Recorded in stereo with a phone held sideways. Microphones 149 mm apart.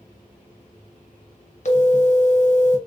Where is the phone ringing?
55° left (ahead or behind), 0.7 m.